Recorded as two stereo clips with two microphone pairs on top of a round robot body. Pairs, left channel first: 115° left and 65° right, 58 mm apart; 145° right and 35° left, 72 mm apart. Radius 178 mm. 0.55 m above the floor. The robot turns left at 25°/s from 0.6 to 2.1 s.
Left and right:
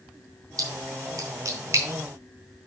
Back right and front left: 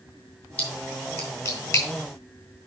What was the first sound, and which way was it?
A splash, 75° right.